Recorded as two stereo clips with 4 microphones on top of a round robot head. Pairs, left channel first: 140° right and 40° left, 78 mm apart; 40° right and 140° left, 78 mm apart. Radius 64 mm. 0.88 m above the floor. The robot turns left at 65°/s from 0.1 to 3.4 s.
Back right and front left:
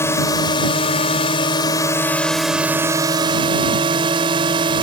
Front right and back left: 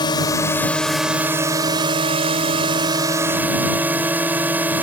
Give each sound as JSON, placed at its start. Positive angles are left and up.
{"t": 0.0, "sound": "a drone", "azimuth_deg": -80}